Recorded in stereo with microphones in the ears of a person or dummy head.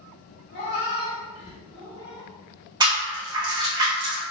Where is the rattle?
25° right (ahead or behind), 0.9 m.